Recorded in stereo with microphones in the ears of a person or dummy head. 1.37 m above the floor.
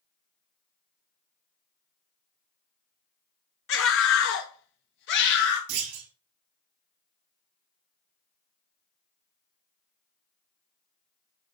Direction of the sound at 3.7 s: 55° left (ahead or behind).